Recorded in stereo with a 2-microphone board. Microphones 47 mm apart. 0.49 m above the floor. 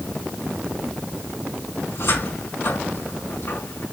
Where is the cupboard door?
70° left (ahead or behind), 5 m.